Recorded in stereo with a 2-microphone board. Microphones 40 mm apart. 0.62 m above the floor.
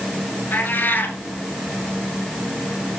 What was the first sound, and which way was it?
A cat meowing, 50° left (ahead or behind).